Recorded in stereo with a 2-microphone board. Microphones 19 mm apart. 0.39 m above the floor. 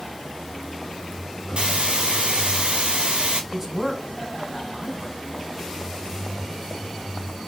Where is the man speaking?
15° right (ahead or behind), 4 m.